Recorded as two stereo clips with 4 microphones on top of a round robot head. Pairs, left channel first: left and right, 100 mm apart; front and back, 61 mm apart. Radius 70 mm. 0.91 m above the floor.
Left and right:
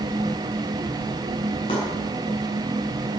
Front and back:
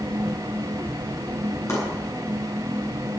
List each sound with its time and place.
1.7 s chopping: 40° left, 8.5 m